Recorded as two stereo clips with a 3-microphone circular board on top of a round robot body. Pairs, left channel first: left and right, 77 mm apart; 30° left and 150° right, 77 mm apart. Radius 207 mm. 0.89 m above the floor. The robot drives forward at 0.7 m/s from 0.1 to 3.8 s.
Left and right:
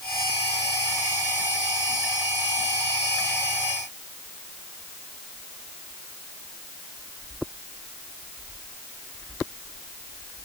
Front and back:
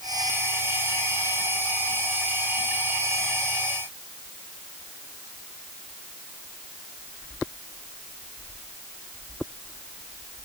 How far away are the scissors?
I don't hear scissors.